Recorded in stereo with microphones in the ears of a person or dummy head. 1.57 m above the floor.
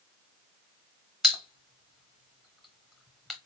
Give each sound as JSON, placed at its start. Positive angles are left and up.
{"t": 1.2, "sound": "a pop", "side_deg": 0, "distance_m": 1.0}